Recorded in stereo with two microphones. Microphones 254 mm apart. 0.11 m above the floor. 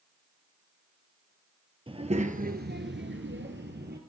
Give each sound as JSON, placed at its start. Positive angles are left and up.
{"t": 1.9, "sound": "a child speaking", "side_deg": -20, "distance_m": 1.8}